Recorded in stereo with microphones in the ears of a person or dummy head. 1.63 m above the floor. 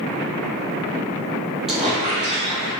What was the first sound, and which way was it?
A squeak, centre (ahead or behind).